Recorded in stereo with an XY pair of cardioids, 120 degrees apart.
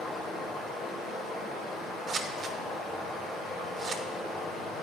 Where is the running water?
60° left, 3 m.